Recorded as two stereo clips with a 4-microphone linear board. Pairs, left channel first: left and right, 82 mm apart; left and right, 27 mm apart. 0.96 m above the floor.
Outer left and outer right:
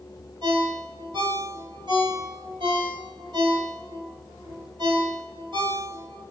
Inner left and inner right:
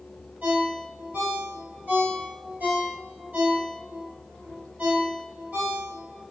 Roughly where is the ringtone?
Right.